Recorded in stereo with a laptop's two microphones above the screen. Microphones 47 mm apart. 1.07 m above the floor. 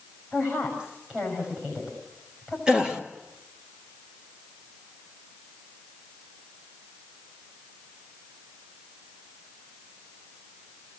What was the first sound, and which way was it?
A woman speaking, 30° right (ahead or behind).